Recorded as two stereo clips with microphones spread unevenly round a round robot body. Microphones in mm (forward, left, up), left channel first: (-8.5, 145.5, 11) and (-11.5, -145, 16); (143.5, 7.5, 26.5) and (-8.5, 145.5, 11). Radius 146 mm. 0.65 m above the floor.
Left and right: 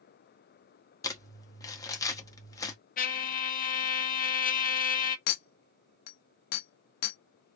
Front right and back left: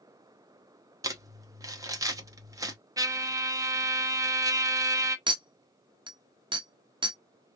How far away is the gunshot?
I don't hear a gunshot.